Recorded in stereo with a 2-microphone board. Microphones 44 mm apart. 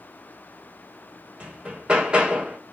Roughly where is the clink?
I don't hear a clink.